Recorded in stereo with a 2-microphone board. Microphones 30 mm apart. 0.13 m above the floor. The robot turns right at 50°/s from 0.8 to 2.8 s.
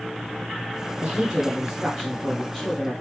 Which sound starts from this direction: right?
A woman speaking, at 1.0 s.